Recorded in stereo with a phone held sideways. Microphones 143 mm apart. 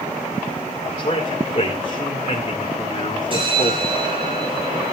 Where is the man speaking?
55° left (ahead or behind), 2 m.